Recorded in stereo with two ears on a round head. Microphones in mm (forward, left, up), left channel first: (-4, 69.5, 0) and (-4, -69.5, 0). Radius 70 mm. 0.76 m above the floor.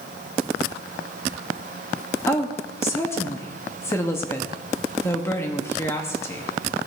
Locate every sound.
2.3 s a woman speaking: 15° left (ahead or behind), 1.4 m